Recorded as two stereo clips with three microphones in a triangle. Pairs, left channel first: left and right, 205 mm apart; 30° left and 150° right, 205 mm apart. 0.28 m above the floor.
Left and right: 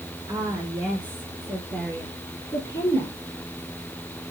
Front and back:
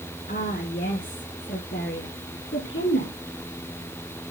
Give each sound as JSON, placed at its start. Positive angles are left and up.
{"t": 0.3, "sound": "a woman speaking", "azimuth_deg": -20, "distance_m": 3.5}